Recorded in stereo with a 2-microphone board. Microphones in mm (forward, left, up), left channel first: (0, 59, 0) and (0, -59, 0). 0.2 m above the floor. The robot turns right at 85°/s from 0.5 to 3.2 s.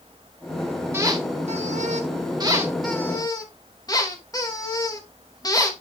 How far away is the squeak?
About 2.5 m.